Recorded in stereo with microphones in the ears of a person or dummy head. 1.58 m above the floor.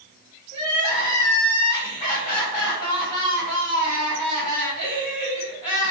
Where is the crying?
35° left (ahead or behind), 1.4 m.